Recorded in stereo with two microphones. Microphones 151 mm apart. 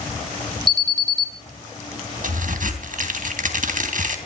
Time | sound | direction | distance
0.7 | an alarm | 30° right (ahead or behind) | 1.5 m
2.2 | a crack | 65° right (ahead or behind) | 3 m